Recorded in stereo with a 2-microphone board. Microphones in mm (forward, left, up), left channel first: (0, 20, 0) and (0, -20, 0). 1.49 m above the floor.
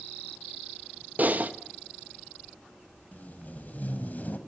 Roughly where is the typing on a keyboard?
Right.